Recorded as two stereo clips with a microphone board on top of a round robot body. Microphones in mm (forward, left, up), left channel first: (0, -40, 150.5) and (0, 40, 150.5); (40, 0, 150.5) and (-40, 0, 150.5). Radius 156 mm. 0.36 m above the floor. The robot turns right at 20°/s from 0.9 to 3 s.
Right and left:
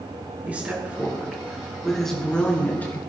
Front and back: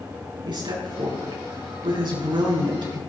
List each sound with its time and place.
0.5 s a woman speaking: 160° left, 7 m; by 3.0 s 155° right, 7 m